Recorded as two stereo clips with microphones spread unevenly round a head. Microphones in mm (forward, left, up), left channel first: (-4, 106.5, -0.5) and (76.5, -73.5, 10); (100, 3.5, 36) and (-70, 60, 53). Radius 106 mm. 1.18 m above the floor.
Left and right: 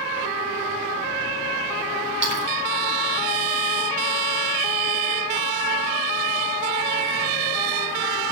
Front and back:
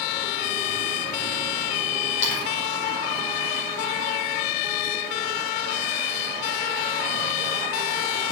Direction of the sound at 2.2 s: 35° right.